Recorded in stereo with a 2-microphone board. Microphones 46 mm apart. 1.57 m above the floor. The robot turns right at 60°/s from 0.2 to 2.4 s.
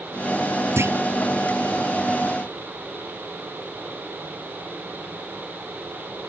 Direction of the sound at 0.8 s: 60° right (ahead or behind).